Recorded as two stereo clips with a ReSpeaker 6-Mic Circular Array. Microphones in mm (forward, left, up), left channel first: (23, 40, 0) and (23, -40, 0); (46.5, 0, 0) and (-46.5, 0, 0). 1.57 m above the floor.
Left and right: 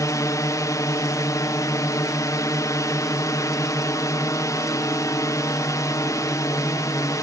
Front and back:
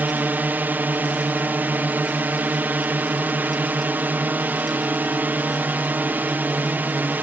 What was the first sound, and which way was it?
A drone, 115° left.